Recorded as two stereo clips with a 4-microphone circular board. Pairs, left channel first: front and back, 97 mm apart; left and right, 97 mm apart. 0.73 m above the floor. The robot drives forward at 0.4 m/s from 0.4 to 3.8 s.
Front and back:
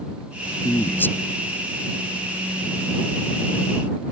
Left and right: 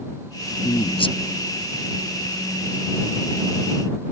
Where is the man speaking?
65° left; by 1.1 s 70° left.